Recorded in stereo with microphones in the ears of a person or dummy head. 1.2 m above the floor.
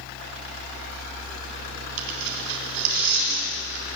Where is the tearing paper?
85° right, 3 m.